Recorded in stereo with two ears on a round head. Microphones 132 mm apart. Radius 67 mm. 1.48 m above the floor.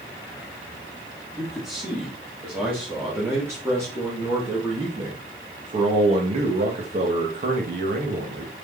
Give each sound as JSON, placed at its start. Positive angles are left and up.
{"t": 1.4, "sound": "a man speaking", "side_deg": -5, "distance_m": 4.0}